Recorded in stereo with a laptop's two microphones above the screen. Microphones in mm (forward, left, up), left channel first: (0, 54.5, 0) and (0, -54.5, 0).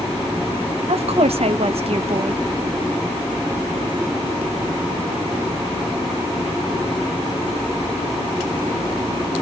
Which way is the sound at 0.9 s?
65° right (ahead or behind).